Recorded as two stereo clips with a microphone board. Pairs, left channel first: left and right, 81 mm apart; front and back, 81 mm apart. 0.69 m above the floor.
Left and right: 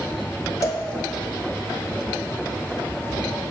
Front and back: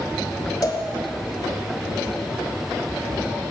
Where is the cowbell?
45° left, 1.1 m.